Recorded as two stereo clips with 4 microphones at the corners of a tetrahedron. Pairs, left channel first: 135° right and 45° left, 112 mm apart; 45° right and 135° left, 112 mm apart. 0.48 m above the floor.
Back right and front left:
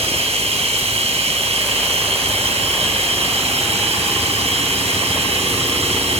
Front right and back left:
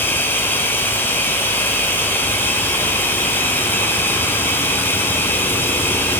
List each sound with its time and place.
0.0 s running water: 25° left, 4 m